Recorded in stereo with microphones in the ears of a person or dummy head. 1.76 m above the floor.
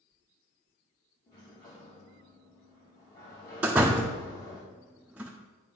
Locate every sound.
1.3 s a sliding door: 20° left (ahead or behind), 1.1 m
3.6 s a door slam: 5° right (ahead or behind), 0.6 m